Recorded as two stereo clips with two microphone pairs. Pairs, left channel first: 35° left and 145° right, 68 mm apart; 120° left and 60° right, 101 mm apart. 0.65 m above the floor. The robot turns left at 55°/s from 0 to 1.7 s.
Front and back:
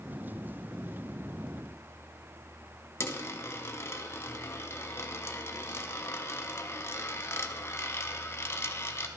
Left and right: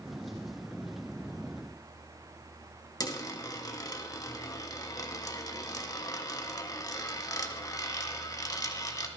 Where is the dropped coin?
75° left, 0.8 m.